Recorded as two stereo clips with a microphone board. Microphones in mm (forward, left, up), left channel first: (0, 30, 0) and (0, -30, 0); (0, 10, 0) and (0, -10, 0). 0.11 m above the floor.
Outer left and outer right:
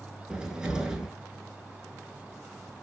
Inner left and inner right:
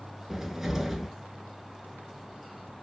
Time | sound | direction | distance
0.3 | a cupboard door | 15° right (ahead or behind) | 0.8 m